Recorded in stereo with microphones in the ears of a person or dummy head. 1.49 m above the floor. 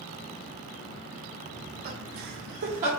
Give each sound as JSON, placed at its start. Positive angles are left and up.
{"t": 1.5, "sound": "laughter", "side_deg": -30, "distance_m": 0.7}